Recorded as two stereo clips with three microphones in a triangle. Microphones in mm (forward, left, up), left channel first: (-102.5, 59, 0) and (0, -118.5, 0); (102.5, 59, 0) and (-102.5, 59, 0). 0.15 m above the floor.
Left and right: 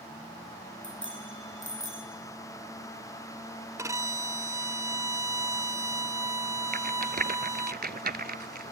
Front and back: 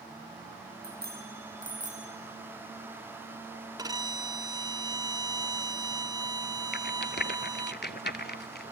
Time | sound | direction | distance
0.8 | a bicycle bell | 140° left | 4 m
3.8 | a violin | 130° right | 0.5 m
6.7 | a rattle | 25° right | 0.7 m